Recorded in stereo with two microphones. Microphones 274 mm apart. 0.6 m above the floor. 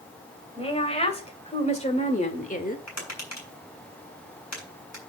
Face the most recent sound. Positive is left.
turn(degrees=75)  # may be behind; listen again after turning